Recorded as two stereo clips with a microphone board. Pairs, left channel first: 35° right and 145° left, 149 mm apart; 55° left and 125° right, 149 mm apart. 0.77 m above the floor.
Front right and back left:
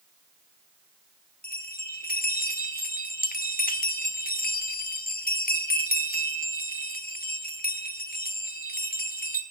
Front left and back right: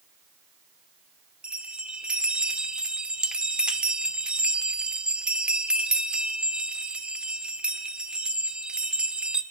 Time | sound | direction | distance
1.4 | a bell | 40° right | 1.4 m